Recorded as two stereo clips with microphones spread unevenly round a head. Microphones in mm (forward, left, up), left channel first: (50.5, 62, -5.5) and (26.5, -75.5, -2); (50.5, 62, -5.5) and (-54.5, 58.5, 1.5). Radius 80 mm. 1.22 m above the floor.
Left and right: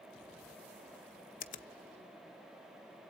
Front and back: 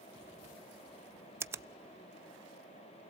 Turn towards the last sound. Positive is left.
turn(degrees=120)